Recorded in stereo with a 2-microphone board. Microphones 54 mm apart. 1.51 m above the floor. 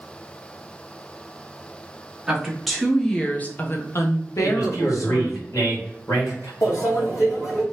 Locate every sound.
2.3 s a woman speaking: 10° right (ahead or behind), 1.2 m; by 5.4 s 75° left (ahead or behind), 1.3 m
4.4 s a man speaking: 70° left (ahead or behind), 2 m
6.6 s a microwave: 65° left (ahead or behind), 1.8 m